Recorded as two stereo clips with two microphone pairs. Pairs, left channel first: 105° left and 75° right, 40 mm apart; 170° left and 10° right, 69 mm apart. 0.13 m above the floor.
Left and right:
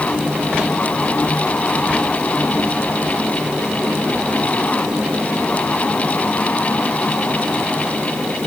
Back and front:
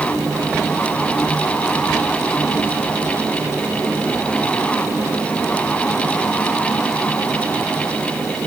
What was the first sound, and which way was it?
Only background noise.